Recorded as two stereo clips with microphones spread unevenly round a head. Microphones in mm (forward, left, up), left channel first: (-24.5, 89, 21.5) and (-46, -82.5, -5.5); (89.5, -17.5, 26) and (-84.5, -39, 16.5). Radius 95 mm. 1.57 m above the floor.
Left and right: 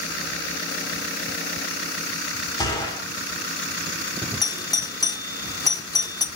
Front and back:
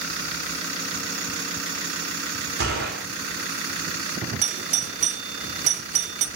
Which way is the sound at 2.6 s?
145° left.